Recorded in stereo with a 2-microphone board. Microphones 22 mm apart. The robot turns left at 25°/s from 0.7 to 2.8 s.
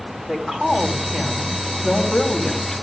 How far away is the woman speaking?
About 3 m.